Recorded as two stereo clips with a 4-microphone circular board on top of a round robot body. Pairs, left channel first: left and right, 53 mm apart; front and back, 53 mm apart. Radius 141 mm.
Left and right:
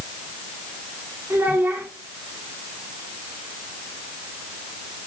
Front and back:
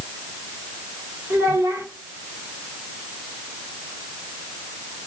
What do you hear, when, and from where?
1.3 s a child speaking: 145° right, 1.8 m